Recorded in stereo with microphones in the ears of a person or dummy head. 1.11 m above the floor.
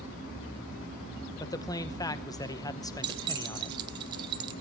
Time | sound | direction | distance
1.4 | a man speaking | 20° left (ahead or behind) | 0.9 m
3.0 | keys jangling | 25° right (ahead or behind) | 0.6 m